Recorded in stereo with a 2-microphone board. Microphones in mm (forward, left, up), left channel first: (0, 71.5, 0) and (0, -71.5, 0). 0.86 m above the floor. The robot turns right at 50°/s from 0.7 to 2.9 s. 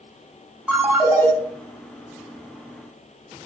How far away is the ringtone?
About 1.5 m.